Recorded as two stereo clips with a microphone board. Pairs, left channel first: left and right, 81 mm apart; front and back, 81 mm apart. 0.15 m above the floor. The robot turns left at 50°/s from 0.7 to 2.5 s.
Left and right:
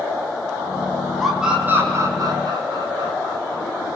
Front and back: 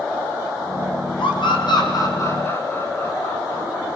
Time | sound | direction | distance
1.2 | a scream | straight ahead | 8.5 m